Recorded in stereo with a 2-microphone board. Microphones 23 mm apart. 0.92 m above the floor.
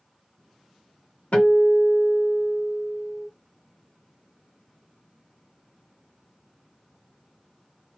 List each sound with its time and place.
1.3 s a guitar: 75° left (ahead or behind), 1.3 m